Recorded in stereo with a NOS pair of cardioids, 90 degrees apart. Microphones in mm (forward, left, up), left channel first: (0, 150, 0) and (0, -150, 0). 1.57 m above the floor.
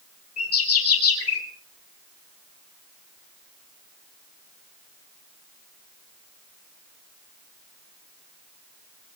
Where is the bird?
50° left, 3.5 m.